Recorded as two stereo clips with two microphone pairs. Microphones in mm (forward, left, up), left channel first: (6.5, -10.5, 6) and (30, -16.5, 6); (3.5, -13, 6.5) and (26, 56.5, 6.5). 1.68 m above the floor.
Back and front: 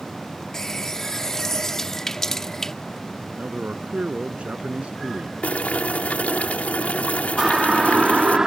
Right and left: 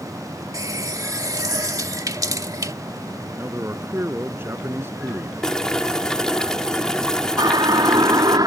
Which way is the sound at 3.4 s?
15° left.